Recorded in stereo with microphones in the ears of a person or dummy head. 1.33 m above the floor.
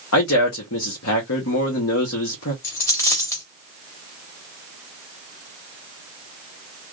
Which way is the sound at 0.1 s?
85° left.